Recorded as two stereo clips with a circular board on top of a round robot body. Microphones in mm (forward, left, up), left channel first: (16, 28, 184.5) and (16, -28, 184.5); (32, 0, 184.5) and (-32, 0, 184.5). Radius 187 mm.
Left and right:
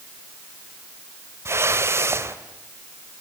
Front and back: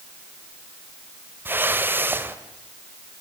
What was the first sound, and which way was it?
A whoosh, 125° right.